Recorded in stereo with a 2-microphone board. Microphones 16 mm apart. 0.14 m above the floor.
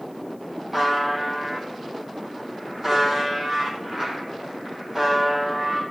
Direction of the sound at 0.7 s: 10° right (ahead or behind).